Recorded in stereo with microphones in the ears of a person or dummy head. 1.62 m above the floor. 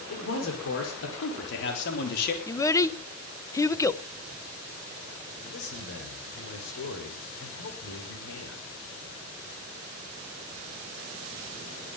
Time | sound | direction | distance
0.1 | a man speaking | 85° left | 5.5 m
2.5 | a child speaking | 10° left (ahead or behind) | 0.9 m
5.4 | a man speaking | 80° left | 4.5 m